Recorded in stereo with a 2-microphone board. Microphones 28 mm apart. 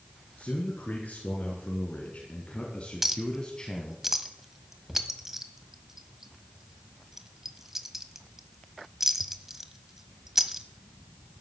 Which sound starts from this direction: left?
A man speaking, at 0.4 s.